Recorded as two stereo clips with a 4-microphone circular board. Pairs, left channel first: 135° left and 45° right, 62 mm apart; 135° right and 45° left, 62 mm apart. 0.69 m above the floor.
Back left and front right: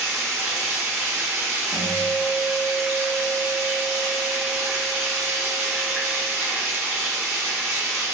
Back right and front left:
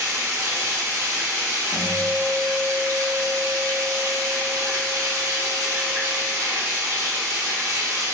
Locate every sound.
0.0 s running water: 15° left, 1.0 m
1.7 s a guitar: 35° right, 1.3 m